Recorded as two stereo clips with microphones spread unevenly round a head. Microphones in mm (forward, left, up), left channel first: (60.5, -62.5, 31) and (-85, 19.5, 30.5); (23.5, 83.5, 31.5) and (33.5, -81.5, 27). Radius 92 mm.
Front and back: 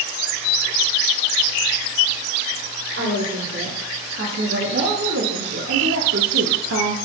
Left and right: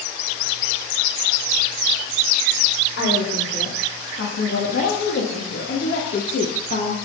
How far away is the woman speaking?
About 3.5 m.